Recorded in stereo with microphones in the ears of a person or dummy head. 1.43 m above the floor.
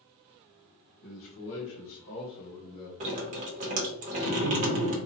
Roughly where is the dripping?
Right.